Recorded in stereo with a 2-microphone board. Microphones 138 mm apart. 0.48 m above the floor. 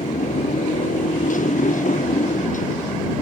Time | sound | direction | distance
0.0 | a motorcycle | 70° left (ahead or behind) | ?